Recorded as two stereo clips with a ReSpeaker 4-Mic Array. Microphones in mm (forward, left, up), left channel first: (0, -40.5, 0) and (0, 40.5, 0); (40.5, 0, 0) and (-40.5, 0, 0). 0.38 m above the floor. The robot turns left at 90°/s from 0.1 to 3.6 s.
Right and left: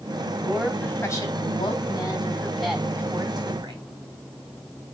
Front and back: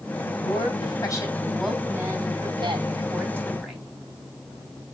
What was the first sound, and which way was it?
A woman speaking, 35° left.